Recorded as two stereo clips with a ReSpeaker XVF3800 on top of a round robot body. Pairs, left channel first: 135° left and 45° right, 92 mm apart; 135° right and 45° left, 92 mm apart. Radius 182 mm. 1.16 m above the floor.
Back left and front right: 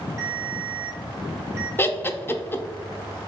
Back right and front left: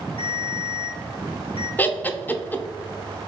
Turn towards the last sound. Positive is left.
turn(degrees=175)